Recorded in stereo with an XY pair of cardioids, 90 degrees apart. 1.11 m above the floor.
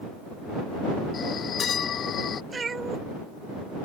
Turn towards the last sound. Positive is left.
turn(degrees=-35)